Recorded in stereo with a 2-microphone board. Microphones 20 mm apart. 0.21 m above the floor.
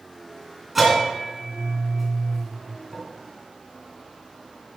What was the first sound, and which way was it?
A bell, 10° right (ahead or behind).